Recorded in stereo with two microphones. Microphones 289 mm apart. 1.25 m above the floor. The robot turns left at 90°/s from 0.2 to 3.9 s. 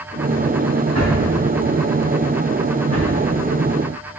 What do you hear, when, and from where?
0.9 s a drawer: 60° right (ahead or behind), 4.5 m; by 3.1 s 70° left (ahead or behind), 4.5 m